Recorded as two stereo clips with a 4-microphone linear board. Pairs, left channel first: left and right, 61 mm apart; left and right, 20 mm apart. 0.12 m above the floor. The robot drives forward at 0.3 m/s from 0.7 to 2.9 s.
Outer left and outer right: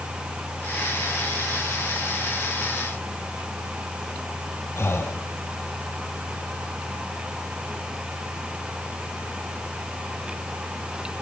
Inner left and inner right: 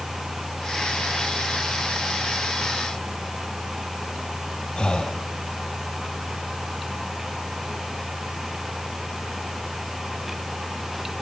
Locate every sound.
4.8 s breathing: 45° left (ahead or behind), 2 m